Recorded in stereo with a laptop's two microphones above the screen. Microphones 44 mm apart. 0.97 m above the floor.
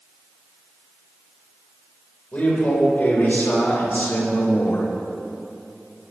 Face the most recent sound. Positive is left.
turn(degrees=65)  # may be behind; listen again after turning